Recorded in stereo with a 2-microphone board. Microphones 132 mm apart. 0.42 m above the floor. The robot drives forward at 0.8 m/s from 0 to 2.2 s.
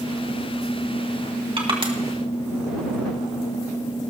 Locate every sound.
1.6 s crushing: 45° right (ahead or behind), 2 m; by 1.9 s 40° right (ahead or behind), 2.5 m